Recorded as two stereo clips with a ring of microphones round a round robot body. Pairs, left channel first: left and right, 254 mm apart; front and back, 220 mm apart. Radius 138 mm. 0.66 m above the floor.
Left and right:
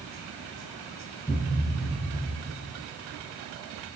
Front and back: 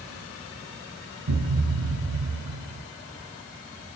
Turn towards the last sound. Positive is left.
turn(degrees=165)